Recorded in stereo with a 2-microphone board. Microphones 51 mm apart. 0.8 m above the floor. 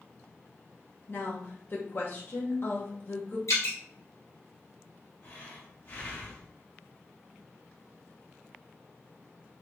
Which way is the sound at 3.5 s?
75° left (ahead or behind).